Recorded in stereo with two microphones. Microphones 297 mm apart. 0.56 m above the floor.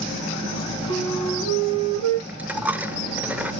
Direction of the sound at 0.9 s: 90° right.